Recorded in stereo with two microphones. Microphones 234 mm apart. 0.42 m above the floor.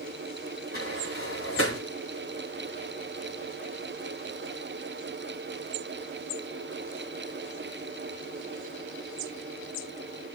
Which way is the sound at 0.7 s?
65° left (ahead or behind).